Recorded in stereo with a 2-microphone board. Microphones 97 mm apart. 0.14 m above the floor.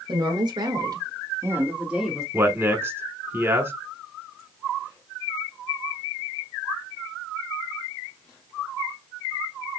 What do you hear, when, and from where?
0.1 s a woman speaking: 55° right (ahead or behind), 2 m; by 2.2 s 5° left (ahead or behind), 1.4 m
2.3 s a man speaking: 25° right (ahead or behind), 1.2 m